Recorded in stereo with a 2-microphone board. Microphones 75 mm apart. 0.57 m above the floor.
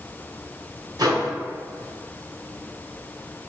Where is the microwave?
65° right (ahead or behind), 1.0 m.